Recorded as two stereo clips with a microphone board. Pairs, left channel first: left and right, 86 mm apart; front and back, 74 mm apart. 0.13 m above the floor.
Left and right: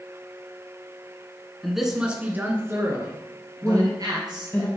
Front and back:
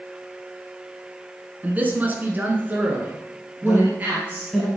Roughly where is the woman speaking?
Left.